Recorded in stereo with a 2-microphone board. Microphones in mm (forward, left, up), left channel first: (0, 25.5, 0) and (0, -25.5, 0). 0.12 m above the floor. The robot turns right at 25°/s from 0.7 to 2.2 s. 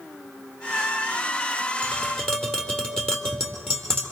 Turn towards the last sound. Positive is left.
turn(degrees=10)  # may be behind; listen again after turning